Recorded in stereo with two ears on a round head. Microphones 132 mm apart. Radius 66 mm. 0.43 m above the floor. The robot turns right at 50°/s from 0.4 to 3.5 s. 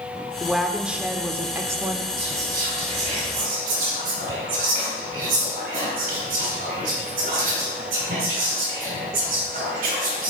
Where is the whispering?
Centre (ahead or behind), 4.5 m; by 10.3 s 60° right (ahead or behind), 4.5 m.